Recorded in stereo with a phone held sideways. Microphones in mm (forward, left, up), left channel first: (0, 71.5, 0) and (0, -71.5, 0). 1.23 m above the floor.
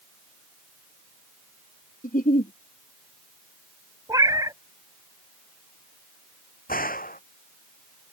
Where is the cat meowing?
25° right (ahead or behind).